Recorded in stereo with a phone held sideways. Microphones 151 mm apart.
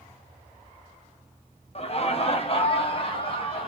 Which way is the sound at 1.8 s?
45° left (ahead or behind).